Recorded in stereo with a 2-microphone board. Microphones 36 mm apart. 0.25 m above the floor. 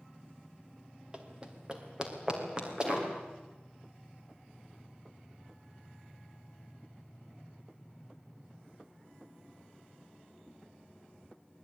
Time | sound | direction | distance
1.1 | running footsteps | 25° right (ahead or behind) | 3.5 m